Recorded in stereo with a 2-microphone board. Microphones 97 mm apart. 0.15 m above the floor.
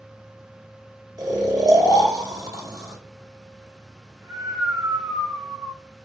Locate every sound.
1.2 s snoring: 40° right (ahead or behind), 1.2 m